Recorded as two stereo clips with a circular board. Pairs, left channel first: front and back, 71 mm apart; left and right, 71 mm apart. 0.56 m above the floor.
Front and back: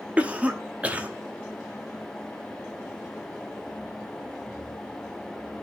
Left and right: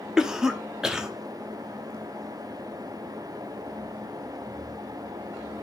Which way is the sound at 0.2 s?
155° right.